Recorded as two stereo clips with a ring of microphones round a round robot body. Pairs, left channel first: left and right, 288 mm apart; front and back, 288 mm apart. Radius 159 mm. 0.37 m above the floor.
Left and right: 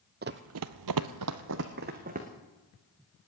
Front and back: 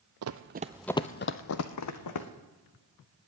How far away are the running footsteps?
About 0.9 m.